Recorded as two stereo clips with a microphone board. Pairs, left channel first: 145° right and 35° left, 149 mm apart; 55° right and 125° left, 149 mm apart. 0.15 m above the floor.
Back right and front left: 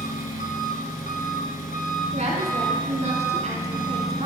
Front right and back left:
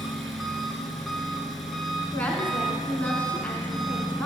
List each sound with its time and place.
0.0 s an engine running: 145° right, 1.3 m
2.1 s a woman speaking: 20° left, 2 m